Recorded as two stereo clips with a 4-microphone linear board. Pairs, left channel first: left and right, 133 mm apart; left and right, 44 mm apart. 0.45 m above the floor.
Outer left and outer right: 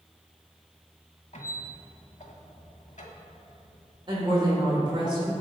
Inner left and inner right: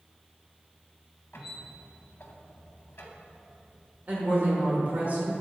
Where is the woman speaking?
35° right (ahead or behind), 1.5 m.